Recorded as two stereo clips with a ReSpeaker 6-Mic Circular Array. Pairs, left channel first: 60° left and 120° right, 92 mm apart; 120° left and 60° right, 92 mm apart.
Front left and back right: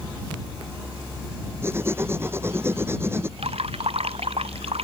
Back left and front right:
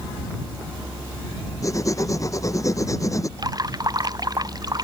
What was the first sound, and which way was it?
Writing, 175° left.